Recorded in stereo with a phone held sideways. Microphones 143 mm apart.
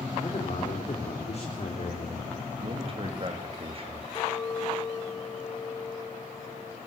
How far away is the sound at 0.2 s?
About 4.5 m.